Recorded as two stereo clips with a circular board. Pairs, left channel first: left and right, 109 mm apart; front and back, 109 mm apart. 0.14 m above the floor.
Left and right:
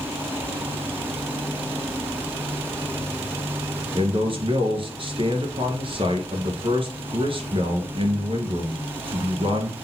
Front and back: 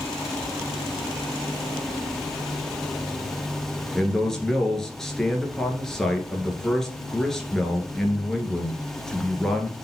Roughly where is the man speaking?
Right.